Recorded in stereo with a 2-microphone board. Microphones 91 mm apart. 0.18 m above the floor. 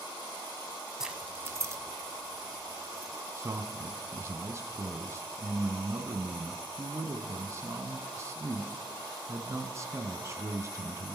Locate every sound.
1.0 s keys jangling: 5° right (ahead or behind), 0.7 m; by 3.1 s 35° right (ahead or behind), 2.5 m
3.4 s a man speaking: 35° right (ahead or behind), 1.5 m